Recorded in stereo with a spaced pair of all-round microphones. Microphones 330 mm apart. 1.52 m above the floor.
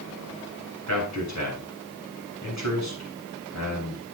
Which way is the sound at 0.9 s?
55° left (ahead or behind).